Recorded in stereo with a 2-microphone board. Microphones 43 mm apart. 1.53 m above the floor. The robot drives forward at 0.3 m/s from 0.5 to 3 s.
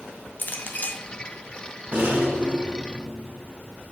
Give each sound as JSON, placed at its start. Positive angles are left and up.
{"t": 0.4, "sound": "a clink", "side_deg": 40, "distance_m": 0.6}
{"t": 1.9, "sound": "a rattle", "side_deg": -50, "distance_m": 1.6}